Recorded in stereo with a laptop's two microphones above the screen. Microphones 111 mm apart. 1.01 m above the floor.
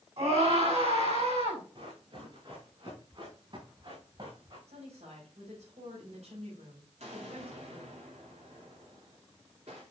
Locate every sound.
0.2 s a scream: 65° right (ahead or behind), 6 m
1.8 s running footsteps: 45° right (ahead or behind), 6 m; by 4.6 s 50° right (ahead or behind), 4.5 m
4.7 s a woman speaking: 80° right, 5.5 m
7.0 s an explosion: 75° right (ahead or behind), 3.5 m